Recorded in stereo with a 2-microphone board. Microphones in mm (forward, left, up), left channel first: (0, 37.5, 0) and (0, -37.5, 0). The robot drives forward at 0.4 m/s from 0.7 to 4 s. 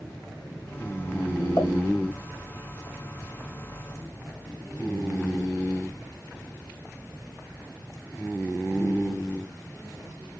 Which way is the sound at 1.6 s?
40° left (ahead or behind).